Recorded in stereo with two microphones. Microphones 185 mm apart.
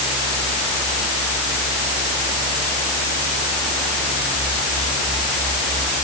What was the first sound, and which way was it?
Only background noise.